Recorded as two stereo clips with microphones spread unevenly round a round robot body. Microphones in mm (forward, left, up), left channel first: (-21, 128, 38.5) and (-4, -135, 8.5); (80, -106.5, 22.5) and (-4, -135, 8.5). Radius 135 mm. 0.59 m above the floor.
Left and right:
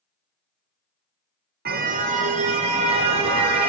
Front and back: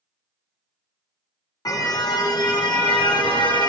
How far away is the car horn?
About 2.5 m.